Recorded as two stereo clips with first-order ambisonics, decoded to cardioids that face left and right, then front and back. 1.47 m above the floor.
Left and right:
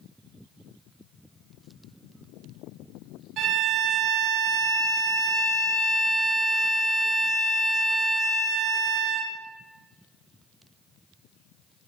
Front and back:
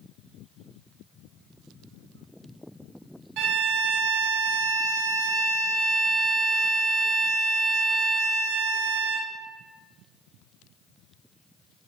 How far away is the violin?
About 0.7 m.